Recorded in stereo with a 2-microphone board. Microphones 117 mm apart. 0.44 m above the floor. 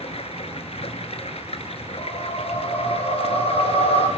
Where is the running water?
65° left (ahead or behind), 1.3 m.